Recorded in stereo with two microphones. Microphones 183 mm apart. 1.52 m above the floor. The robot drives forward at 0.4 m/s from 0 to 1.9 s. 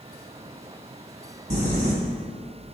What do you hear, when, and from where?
1.5 s crumpling: 40° right (ahead or behind), 1.7 m; by 1.9 s 45° right (ahead or behind), 1.7 m